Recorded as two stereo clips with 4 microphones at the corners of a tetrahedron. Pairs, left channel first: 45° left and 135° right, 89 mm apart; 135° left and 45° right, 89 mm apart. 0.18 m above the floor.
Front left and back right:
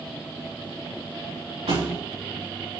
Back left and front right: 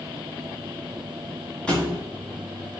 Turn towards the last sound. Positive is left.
turn(degrees=-145)